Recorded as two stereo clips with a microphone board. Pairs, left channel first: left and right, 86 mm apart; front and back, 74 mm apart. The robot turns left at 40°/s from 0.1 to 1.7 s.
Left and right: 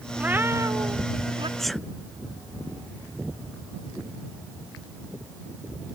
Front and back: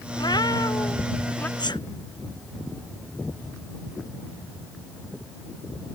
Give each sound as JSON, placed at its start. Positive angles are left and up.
{"t": 0.2, "sound": "a cat meowing", "azimuth_deg": -15}
{"t": 1.6, "sound": "a sneeze", "azimuth_deg": 5}